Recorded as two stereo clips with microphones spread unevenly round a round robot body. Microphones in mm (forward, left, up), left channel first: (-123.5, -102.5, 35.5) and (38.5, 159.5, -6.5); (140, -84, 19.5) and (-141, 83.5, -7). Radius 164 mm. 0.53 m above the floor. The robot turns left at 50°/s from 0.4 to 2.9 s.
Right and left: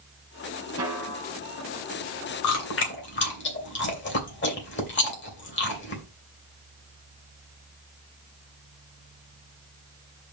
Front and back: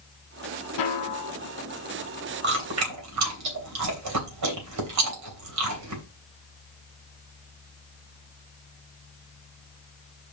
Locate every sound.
0.8 s a snare drum: 20° right, 1.9 m; by 1.4 s 50° right, 1.9 m
2.4 s chewing: 155° right, 3 m; by 6.0 s straight behind, 3 m